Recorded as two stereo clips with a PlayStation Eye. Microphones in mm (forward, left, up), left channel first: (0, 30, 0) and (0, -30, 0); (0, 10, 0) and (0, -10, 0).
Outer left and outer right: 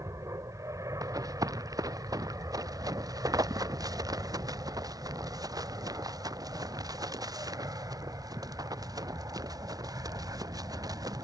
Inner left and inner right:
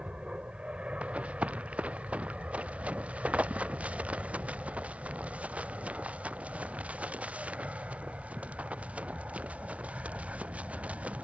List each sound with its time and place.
0.0 s an aircraft: 60° right (ahead or behind); by 11.2 s 65° right (ahead or behind)
1.0 s running footsteps: 75° right (ahead or behind); by 11.2 s 85° right